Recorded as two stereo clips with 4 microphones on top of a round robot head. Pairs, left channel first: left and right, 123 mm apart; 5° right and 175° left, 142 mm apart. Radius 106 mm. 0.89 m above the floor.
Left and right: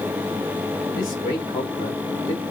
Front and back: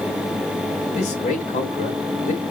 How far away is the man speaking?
About 2.5 m.